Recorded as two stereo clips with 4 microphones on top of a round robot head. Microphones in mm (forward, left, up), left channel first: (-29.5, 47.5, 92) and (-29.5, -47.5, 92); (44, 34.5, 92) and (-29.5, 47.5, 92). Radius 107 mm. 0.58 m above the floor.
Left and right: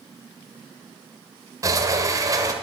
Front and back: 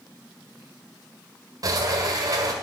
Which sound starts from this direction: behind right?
A sliding door, at 1.6 s.